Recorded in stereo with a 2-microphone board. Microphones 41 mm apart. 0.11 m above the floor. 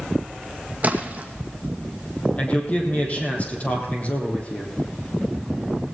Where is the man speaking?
35° left (ahead or behind), 4 m.